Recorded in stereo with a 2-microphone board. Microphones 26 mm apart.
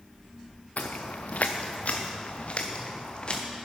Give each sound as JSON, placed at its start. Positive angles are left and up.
{"t": 0.8, "sound": "footsteps", "side_deg": 80, "distance_m": 1.1}